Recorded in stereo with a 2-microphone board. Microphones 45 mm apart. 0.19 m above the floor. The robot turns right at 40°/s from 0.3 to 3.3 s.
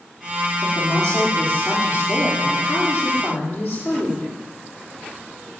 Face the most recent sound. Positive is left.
turn(degrees=145)